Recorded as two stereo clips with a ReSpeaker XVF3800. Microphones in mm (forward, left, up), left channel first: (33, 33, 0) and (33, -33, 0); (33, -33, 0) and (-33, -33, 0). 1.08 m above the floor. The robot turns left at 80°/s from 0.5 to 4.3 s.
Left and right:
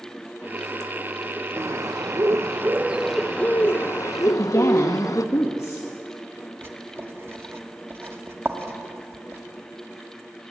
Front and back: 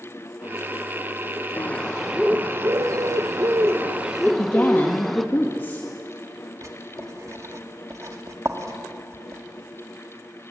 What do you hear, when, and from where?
1.6 s a bird: 50° right, 0.9 m; by 5.2 s 90° left, 0.9 m
4.2 s a woman speaking: 60° left, 1.7 m; by 5.9 s 55° left, 1.7 m
6.6 s writing: 140° right, 1.9 m